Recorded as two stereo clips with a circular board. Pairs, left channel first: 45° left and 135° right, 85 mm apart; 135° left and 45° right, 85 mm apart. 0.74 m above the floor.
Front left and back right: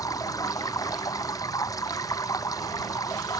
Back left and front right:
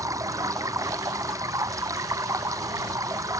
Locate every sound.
0.0 s running water: straight ahead